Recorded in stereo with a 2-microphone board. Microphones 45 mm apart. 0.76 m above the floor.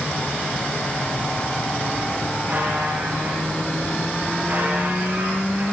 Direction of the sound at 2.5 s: 45° right (ahead or behind).